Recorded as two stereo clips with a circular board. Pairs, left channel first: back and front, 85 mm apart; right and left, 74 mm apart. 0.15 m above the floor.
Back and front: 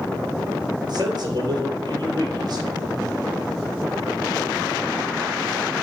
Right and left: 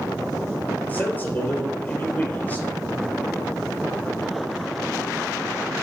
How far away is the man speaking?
About 3 m.